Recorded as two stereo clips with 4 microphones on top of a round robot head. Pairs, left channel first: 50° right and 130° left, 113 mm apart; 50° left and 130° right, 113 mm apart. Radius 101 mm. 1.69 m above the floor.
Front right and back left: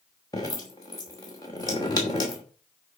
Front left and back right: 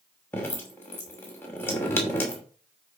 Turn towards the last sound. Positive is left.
turn(degrees=-10)